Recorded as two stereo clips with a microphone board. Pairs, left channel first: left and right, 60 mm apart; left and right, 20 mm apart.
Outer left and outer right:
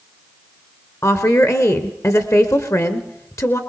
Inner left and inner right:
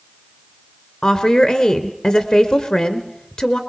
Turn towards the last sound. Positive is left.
turn(degrees=55)  # may be behind; listen again after turning